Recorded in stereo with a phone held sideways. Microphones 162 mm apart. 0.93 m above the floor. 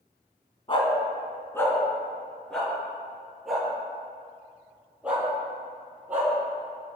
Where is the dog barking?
30° left (ahead or behind), 2.5 m; by 6.3 s 10° right (ahead or behind), 9.5 m.